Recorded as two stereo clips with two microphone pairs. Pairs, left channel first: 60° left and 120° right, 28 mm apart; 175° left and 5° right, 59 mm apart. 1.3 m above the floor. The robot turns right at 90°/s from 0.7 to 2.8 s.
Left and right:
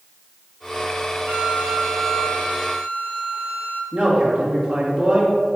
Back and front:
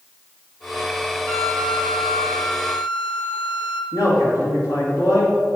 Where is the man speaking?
160° right, 2 m.